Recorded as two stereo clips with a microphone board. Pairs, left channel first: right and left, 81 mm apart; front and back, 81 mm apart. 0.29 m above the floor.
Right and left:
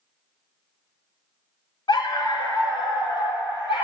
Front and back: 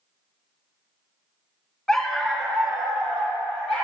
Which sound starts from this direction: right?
A dog barking, at 1.9 s.